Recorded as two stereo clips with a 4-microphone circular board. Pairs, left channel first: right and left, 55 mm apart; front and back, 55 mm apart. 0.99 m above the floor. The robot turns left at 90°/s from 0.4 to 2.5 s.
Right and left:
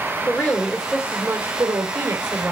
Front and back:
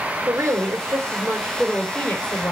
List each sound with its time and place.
0.3 s a woman speaking: 145° right, 2.5 m; by 2.5 s 25° left, 2.5 m